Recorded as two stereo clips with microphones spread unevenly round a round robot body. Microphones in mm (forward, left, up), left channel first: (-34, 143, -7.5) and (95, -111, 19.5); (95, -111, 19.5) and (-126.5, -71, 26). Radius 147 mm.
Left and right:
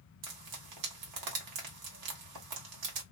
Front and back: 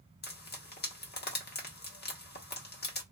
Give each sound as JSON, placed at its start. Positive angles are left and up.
{"t": 0.2, "sound": "frying", "azimuth_deg": -55, "distance_m": 1.1}